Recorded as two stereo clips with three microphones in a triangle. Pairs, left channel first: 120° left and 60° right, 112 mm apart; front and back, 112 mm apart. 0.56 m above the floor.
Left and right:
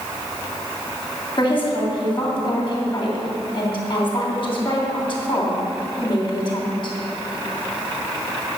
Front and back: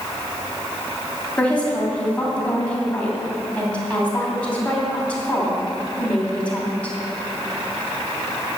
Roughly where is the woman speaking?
Left.